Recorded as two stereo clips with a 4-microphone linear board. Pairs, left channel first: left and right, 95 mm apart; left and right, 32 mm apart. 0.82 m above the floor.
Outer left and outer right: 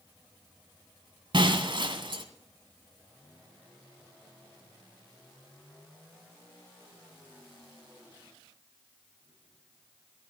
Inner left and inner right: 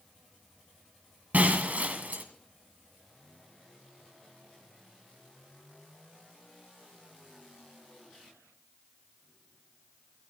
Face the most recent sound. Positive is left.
turn(degrees=-60)  # may be behind; listen again after turning